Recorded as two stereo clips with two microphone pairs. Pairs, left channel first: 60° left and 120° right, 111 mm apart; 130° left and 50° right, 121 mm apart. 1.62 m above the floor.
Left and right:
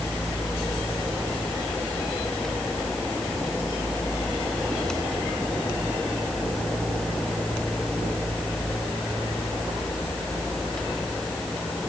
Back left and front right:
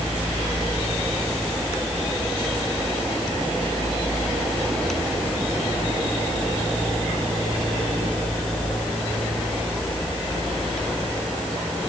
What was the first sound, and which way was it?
Only background noise.